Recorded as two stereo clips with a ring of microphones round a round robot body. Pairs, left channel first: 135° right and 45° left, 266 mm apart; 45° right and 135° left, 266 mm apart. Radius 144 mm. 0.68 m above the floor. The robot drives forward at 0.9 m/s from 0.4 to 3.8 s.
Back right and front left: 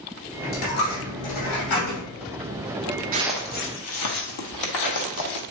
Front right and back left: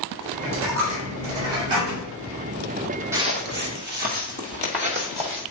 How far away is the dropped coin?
About 2.5 m.